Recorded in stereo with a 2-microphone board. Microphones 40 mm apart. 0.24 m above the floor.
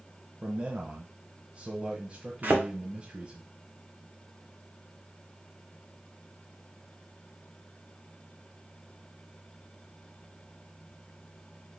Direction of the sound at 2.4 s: 45° right (ahead or behind).